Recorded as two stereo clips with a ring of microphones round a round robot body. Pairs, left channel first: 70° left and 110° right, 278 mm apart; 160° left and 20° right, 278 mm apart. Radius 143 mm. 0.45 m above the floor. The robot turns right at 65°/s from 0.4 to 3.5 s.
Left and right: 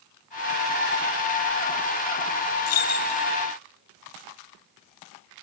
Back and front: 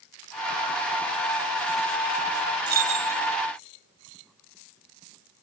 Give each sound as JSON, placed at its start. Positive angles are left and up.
{"t": 2.7, "sound": "keys jangling", "azimuth_deg": 30, "distance_m": 1.6}